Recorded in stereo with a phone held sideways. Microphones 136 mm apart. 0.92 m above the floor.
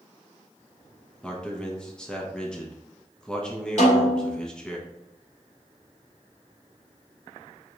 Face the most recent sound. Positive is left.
turn(degrees=55)  # may be behind; listen again after turning